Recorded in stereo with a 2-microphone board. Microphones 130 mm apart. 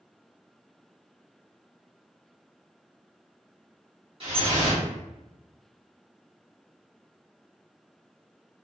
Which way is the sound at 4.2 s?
45° right (ahead or behind).